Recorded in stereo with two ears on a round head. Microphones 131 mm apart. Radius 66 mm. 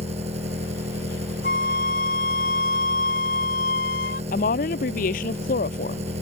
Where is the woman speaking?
65° left (ahead or behind).